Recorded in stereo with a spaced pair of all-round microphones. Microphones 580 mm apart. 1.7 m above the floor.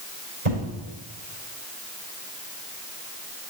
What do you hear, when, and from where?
0.5 s an explosion: 65° right (ahead or behind), 4 m